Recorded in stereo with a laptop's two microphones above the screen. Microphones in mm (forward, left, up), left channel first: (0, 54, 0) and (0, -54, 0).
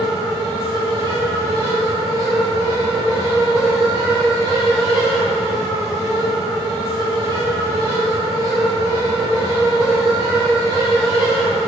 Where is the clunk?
I don't hear a clunk.